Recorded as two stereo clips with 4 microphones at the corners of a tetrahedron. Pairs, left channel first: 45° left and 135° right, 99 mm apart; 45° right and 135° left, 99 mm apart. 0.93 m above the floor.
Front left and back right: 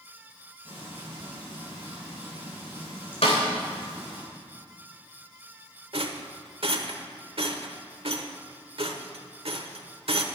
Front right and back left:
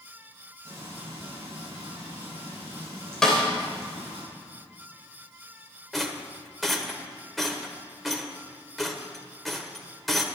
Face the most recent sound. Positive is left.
turn(degrees=-135)